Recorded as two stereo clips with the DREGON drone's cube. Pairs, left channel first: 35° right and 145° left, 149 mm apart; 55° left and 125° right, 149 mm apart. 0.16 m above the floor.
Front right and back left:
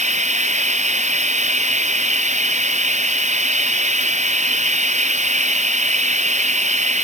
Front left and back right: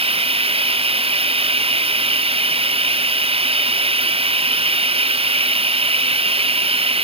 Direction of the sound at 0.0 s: 175° right.